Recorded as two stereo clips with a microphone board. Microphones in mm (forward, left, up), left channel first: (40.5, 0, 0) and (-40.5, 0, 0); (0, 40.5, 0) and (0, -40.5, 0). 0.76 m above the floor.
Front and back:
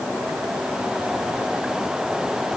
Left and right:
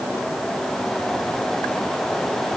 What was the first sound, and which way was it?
Only background noise.